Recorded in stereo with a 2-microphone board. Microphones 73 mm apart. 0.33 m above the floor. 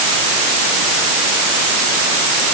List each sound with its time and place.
Only background noise.